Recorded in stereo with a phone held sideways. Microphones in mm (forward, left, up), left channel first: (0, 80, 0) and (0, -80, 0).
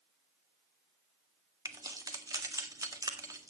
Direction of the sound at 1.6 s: 20° right (ahead or behind).